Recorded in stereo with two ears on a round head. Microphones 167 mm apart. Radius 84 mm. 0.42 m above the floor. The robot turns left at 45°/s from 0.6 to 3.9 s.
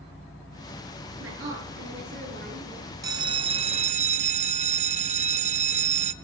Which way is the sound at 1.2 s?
75° right.